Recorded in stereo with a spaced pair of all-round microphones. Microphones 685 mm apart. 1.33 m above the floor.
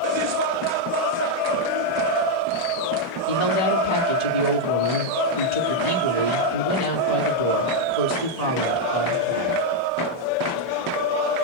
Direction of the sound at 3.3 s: 70° left (ahead or behind).